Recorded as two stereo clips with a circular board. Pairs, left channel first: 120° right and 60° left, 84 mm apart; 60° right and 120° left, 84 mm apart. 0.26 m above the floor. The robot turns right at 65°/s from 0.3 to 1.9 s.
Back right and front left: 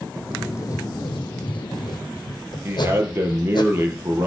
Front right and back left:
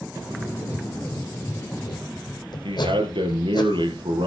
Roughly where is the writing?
Behind.